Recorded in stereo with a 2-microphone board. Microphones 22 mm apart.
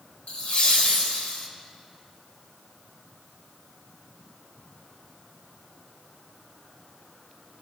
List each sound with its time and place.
0.3 s laughter: 65° left (ahead or behind), 2 m